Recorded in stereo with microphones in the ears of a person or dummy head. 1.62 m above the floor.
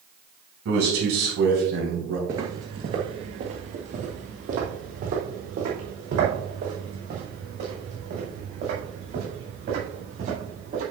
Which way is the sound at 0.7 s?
75° right (ahead or behind).